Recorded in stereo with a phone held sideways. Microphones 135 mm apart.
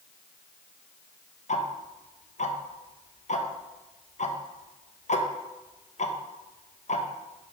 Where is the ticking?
60° left (ahead or behind), 0.6 m.